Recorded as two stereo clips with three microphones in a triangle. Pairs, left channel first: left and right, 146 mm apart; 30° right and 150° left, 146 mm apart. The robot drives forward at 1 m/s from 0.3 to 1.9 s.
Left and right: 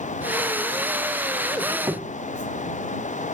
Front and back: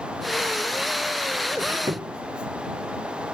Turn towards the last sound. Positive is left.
turn(degrees=-155)